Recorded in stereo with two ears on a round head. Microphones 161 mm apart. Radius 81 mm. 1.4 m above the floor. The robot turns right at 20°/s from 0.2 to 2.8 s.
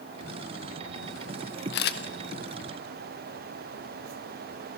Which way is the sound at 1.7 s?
65° left (ahead or behind).